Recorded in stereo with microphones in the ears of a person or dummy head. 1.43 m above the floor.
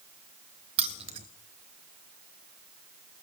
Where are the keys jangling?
35° right (ahead or behind), 0.7 m.